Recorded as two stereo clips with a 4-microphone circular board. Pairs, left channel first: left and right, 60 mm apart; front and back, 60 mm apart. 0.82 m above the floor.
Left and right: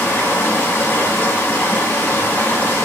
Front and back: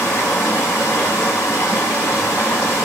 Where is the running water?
30° left, 1.0 m.